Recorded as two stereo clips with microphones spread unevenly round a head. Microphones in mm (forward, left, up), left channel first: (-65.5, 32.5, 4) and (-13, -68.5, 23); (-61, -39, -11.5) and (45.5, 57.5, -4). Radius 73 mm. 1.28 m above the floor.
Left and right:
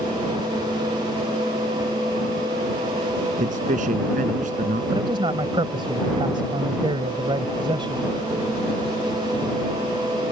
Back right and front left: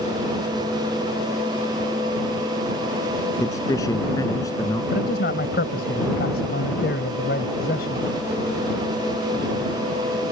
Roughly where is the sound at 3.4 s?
Ahead right.